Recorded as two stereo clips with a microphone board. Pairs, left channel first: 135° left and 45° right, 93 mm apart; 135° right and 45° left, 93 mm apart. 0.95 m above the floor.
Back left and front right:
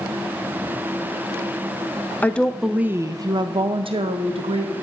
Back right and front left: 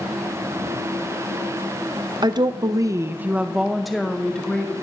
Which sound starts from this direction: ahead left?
A woman speaking, at 2.2 s.